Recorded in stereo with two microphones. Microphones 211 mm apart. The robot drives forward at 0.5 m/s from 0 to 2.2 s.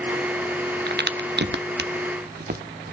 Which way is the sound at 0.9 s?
50° right (ahead or behind).